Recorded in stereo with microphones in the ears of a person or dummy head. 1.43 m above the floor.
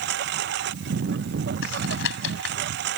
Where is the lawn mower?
65° right (ahead or behind).